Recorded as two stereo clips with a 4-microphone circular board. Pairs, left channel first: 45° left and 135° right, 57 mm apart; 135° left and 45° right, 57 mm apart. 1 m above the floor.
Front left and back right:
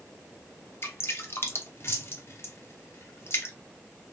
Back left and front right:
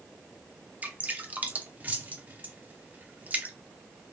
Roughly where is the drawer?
I don't hear a drawer.